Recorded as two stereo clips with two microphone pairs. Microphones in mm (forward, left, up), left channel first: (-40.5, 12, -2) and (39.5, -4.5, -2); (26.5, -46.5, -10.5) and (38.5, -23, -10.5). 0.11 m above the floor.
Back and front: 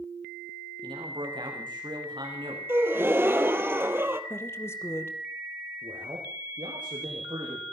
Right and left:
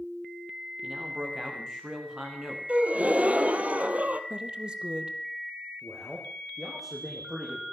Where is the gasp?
45° left, 1.7 m.